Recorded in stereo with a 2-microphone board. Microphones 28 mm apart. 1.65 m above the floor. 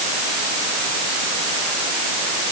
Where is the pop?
I don't hear a pop.